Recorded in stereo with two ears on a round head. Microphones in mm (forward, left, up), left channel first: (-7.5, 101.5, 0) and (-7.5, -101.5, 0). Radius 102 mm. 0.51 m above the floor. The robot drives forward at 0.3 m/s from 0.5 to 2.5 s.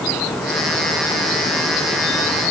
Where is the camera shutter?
No camera shutter in this recording.